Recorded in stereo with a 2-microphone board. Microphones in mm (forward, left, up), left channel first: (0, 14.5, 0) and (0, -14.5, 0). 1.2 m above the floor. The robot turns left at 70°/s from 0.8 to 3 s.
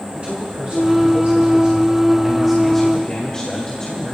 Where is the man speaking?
55° right, 2 m; by 4.1 s 150° left, 2 m.